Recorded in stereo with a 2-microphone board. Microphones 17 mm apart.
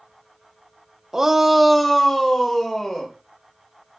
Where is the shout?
25° right (ahead or behind), 0.9 m; by 3.1 s 35° left (ahead or behind), 2 m.